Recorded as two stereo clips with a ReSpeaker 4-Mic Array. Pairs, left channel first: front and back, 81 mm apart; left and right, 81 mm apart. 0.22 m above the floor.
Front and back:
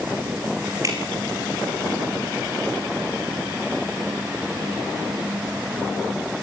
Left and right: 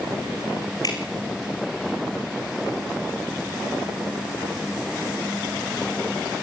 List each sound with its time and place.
0.8 s dripping: 135° left, 4 m